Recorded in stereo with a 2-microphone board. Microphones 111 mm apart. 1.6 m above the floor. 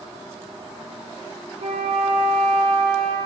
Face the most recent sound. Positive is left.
turn(degrees=-60)  # may be behind; listen again after turning